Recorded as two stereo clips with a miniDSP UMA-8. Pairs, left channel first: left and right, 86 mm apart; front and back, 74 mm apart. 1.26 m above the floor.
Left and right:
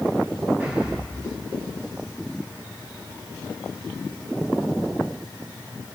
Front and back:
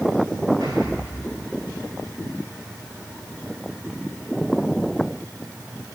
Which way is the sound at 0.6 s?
160° right.